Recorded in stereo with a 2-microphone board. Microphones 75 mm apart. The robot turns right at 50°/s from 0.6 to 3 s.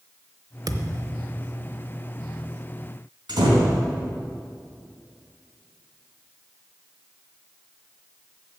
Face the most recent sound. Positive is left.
turn(degrees=-85)